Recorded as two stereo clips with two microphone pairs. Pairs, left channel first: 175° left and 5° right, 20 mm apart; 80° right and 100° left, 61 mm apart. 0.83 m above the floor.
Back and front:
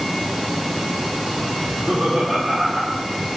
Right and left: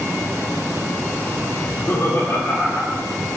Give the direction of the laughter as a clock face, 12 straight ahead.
2 o'clock.